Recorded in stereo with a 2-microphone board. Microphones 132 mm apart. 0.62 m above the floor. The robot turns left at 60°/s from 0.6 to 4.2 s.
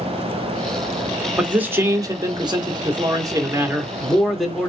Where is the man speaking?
10° right, 1.2 m; by 4.7 s straight behind, 1.2 m.